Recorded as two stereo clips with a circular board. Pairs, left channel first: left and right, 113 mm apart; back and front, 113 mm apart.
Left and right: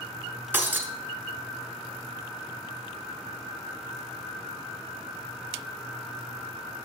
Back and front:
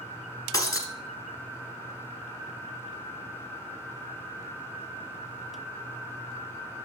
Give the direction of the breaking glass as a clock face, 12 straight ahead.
5 o'clock.